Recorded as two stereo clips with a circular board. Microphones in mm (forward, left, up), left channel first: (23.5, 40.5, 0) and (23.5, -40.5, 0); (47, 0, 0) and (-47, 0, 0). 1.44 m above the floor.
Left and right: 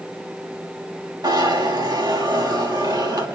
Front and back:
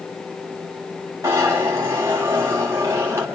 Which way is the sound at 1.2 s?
120° right.